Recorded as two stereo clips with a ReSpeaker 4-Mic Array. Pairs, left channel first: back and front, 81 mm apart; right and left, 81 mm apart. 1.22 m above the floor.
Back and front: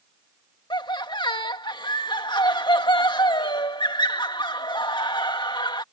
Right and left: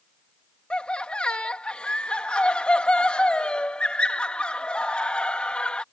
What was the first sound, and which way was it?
Laughter, 165° right.